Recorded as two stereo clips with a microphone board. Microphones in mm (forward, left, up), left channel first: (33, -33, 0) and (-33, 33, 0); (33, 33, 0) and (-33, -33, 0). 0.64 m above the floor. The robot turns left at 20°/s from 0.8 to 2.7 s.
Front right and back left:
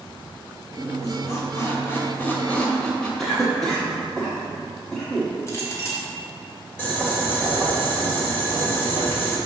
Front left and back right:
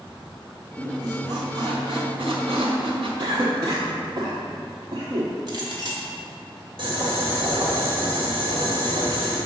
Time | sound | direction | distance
0.8 | a squeak | 90° right | 1.7 m
3.2 | a cough | 130° right | 1.1 m
5.5 | a clink | 100° right | 1.9 m
6.8 | boiling | 115° right | 2.5 m